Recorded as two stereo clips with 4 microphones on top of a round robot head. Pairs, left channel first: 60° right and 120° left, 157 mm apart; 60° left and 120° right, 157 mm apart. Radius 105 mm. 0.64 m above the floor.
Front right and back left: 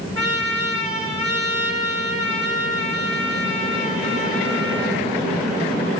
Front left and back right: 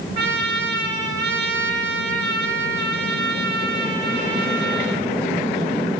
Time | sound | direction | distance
0.1 | a trumpet | 125° right | 6.5 m